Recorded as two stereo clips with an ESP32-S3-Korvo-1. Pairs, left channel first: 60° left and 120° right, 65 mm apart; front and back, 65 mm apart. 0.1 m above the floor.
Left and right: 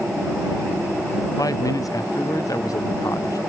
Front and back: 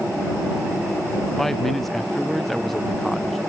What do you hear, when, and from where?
1.4 s a man speaking: 85° left